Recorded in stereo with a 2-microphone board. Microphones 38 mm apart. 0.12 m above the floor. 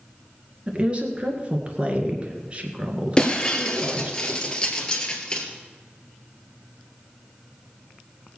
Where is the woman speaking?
30° right (ahead or behind), 2 m.